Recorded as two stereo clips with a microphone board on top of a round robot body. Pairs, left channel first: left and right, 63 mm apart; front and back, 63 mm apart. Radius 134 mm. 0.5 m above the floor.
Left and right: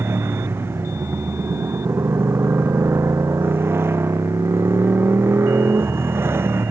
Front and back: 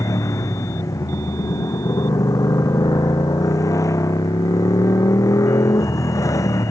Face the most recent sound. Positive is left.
turn(degrees=-35)